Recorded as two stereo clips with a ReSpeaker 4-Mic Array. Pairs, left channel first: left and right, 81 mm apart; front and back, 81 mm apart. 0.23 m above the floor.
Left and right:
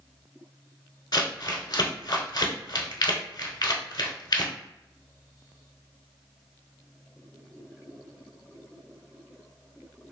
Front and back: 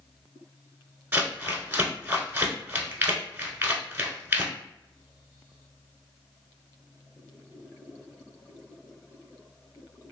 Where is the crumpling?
115° left, 0.8 m.